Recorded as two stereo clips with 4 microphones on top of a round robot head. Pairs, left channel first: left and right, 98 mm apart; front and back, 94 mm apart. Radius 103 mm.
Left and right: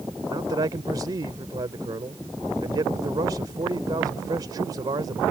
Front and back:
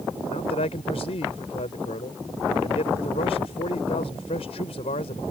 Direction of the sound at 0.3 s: 30° right.